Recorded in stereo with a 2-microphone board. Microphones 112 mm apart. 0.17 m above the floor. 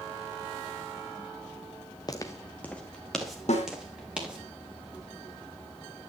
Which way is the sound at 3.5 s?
70° left (ahead or behind).